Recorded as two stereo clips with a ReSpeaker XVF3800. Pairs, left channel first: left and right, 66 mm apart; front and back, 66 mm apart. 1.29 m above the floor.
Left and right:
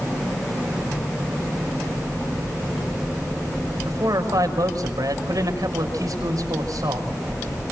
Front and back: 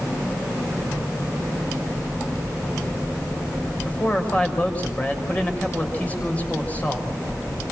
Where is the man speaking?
70° right, 6 m.